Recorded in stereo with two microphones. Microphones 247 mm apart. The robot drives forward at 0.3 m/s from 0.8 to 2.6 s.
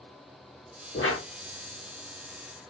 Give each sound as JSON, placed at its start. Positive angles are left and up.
{"t": 0.9, "sound": "a whoosh", "side_deg": 60, "distance_m": 1.2}